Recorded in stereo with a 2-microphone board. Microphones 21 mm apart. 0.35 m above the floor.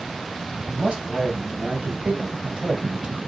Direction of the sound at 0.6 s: 55° right (ahead or behind).